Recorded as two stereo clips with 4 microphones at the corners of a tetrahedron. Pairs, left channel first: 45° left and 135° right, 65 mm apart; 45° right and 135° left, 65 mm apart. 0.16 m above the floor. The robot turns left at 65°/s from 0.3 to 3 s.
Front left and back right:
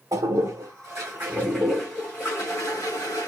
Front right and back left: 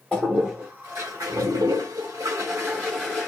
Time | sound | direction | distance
0.1 | a toilet flushing | 130° right | 3.5 m